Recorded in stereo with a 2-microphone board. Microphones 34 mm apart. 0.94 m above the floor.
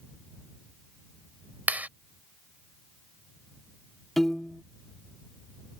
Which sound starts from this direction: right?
A clap, at 1.7 s.